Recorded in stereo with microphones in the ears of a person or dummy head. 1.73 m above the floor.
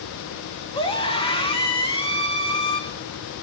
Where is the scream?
25° left (ahead or behind), 2 m.